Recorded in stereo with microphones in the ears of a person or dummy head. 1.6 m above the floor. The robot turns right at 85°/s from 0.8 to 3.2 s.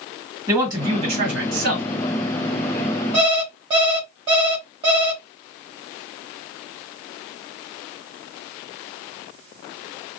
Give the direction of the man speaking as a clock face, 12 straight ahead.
6 o'clock.